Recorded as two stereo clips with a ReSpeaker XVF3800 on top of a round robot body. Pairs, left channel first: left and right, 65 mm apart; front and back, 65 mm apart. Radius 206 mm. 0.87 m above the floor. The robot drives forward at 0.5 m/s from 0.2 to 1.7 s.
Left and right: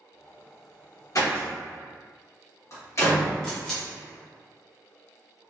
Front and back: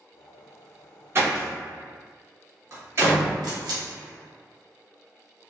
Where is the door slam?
125° left, 1.4 m; by 3.4 s 135° left, 1.6 m.